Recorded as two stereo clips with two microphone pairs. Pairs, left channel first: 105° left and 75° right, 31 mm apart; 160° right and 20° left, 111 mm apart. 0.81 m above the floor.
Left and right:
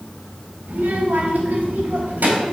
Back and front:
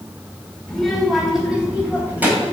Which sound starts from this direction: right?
A child speaking, at 0.7 s.